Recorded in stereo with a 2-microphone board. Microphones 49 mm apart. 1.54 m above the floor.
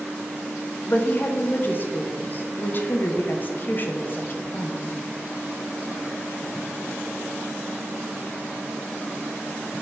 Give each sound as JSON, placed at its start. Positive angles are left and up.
{"t": 0.9, "sound": "a woman speaking", "side_deg": 45, "distance_m": 0.8}